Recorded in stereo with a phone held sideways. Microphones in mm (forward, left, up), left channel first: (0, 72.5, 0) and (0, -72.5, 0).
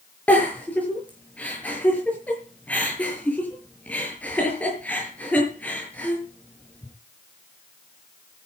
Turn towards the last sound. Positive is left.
turn(degrees=10)  # may be behind; listen again after turning